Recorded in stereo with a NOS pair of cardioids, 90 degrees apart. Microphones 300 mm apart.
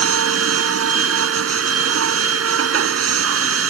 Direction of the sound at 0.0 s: 50° right.